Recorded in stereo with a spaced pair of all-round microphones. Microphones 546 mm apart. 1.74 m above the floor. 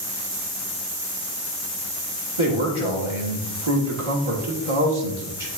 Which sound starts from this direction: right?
A man speaking, at 2.4 s.